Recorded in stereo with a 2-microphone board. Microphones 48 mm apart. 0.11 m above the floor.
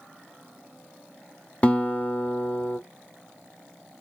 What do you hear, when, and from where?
1.6 s a guitar: 30° left (ahead or behind), 0.7 m